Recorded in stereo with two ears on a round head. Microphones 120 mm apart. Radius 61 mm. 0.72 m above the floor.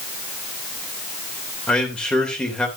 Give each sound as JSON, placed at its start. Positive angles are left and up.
{"t": 1.7, "sound": "a man speaking", "side_deg": 5, "distance_m": 2.5}